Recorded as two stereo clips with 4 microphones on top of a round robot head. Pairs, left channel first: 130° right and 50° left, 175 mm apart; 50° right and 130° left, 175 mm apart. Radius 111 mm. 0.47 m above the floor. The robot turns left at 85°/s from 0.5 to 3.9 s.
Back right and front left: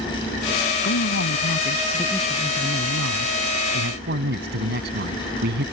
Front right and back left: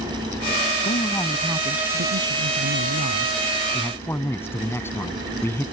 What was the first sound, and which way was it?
A man speaking, 100° right.